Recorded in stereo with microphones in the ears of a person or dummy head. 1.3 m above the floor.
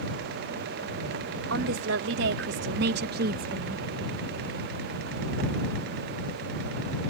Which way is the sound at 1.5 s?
70° right (ahead or behind).